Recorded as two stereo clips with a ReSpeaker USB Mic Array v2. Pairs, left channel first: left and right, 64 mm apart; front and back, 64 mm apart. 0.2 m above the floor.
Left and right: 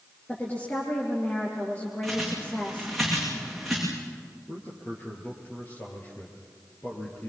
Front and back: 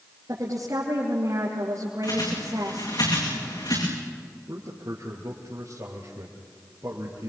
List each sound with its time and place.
0.3 s a woman speaking: 150° left, 4.5 m
2.0 s a bird: straight ahead, 8.5 m
4.5 s a man speaking: 145° left, 4.5 m